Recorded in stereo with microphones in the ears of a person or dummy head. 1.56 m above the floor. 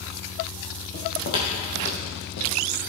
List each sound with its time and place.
0.9 s footsteps: 40° left (ahead or behind), 2.5 m; by 2.5 s 55° left (ahead or behind), 3 m